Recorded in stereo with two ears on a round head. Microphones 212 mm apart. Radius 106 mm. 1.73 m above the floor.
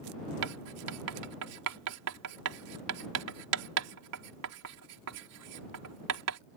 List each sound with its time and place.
0.4 s writing: 75° right (ahead or behind)